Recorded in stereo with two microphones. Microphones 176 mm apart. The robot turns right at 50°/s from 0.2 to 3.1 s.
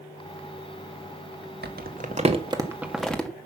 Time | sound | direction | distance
1.6 | crumpling | 70° right (ahead or behind) | 1.5 m